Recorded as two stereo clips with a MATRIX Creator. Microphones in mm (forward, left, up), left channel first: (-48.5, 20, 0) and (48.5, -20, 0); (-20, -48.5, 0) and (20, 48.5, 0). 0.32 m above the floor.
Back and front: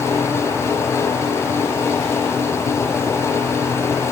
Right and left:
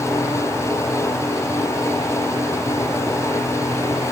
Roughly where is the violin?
No violin in this recording.